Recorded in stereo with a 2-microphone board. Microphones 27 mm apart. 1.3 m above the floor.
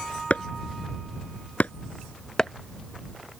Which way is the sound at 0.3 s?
70° left (ahead or behind).